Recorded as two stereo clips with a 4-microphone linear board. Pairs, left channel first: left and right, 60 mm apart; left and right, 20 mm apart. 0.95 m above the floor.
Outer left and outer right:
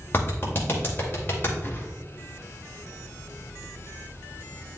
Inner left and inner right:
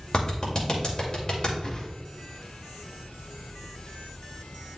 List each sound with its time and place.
0.1 s a clap: 35° left (ahead or behind), 2.5 m
1.6 s a whoosh: 30° left (ahead or behind), 1.5 m